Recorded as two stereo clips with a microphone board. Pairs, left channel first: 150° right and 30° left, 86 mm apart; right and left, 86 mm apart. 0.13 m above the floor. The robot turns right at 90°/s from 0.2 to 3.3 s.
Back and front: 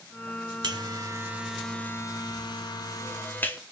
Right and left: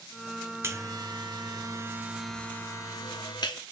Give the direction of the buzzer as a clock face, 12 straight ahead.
11 o'clock.